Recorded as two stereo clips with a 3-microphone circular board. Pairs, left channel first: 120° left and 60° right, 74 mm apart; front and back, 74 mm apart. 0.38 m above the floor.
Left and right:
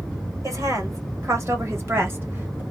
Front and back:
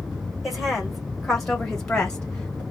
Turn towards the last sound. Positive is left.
turn(degrees=-50)